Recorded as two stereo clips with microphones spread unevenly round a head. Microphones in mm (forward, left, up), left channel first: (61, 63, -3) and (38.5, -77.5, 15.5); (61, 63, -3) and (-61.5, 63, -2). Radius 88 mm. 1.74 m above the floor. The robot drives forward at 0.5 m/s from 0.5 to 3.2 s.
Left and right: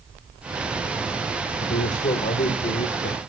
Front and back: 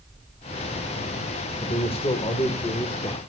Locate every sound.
1.6 s a man speaking: 40° left, 2 m; by 3.2 s 60° left, 1.6 m